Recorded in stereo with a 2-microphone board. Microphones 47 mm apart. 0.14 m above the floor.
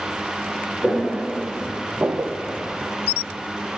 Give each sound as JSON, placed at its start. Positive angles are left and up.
{"t": 0.8, "sound": "footsteps", "side_deg": 25, "distance_m": 2.0}